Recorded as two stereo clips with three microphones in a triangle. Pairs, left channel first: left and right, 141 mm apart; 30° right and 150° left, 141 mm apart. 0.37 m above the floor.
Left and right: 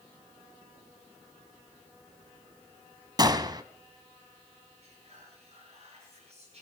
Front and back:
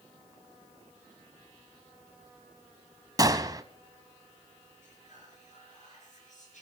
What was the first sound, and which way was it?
A gunshot, 150° right.